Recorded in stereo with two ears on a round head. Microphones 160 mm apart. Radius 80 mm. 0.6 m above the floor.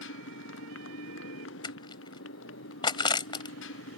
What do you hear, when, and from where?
0.0 s a motorcycle: 80° left
1.6 s crushing: 25° left (ahead or behind)